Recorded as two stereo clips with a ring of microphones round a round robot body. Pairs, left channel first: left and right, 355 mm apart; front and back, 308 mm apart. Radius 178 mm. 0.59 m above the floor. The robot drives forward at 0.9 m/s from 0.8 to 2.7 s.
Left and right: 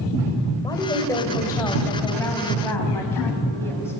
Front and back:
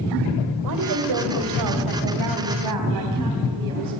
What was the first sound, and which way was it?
A woman speaking, 170° left.